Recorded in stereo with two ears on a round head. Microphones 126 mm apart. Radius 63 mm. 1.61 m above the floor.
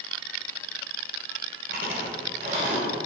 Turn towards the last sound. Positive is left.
turn(degrees=-70)  # may be behind; listen again after turning